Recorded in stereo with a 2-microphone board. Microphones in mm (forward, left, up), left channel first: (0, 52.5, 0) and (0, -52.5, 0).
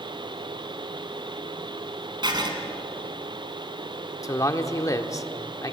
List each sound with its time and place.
2.2 s writing: 45° right (ahead or behind), 3 m
4.2 s a man speaking: 35° left (ahead or behind), 1.4 m